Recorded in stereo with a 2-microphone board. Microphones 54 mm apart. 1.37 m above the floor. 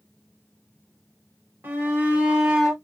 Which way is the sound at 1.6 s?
35° right (ahead or behind).